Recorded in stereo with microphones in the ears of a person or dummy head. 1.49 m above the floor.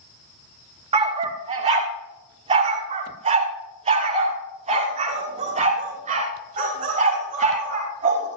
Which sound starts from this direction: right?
A dog barking, at 0.9 s.